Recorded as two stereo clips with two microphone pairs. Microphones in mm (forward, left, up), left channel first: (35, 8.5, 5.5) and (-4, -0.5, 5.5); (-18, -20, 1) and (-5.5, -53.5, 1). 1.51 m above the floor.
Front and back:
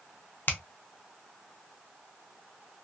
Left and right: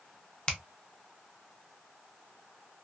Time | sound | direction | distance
0.5 | a finger snap | 45° left | 0.6 m